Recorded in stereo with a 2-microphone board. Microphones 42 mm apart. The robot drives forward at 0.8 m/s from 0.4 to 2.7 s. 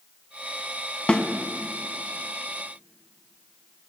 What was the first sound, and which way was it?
A snare drum, 25° left (ahead or behind).